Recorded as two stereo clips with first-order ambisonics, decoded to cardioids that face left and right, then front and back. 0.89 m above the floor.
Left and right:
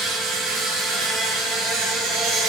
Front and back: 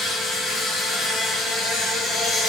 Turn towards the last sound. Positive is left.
turn(degrees=-65)